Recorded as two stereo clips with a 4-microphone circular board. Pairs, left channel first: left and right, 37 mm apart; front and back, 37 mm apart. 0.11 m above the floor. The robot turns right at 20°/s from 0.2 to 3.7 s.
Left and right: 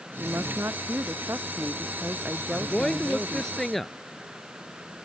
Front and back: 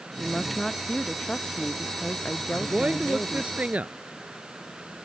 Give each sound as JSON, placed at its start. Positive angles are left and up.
{"t": 0.2, "sound": "a woman speaking", "azimuth_deg": -90}
{"t": 2.5, "sound": "a woman speaking", "azimuth_deg": 145}